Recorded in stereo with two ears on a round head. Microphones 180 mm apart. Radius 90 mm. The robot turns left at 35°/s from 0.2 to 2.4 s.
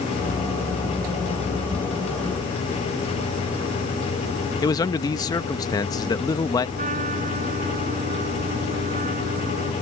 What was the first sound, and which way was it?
A man speaking, 20° left (ahead or behind).